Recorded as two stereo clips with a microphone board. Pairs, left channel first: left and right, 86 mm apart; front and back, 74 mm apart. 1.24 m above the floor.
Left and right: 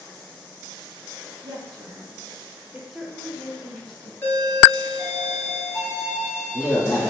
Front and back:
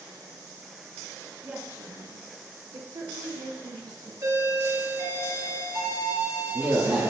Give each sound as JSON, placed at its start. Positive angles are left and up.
{"t": 1.4, "sound": "a woman speaking", "azimuth_deg": -105, "distance_m": 0.6}
{"t": 4.2, "sound": "a doorbell", "azimuth_deg": 155, "distance_m": 1.9}